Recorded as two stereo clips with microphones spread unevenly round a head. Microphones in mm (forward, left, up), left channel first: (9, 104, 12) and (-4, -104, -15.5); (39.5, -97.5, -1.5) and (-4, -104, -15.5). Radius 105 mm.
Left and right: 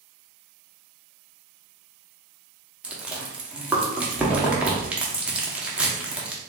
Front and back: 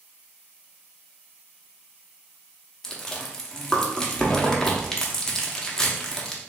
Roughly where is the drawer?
I don't hear a drawer.